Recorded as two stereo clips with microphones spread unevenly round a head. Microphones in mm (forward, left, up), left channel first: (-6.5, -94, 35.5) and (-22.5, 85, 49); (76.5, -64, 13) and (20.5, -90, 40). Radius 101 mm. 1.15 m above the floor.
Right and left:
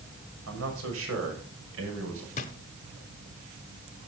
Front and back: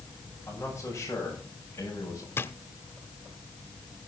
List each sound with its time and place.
0.5 s a man speaking: 100° left, 6.5 m; by 2.3 s 90° left, 6 m
2.4 s a drawer: 40° right, 1.1 m